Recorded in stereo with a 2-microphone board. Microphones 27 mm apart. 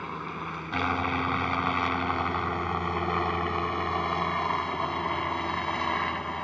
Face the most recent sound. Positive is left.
turn(degrees=20)  # may be behind; listen again after turning